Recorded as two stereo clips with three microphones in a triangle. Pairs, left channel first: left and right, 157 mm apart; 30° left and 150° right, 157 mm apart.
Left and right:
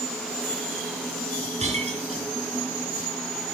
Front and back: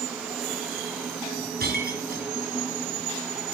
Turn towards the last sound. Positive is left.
turn(degrees=-135)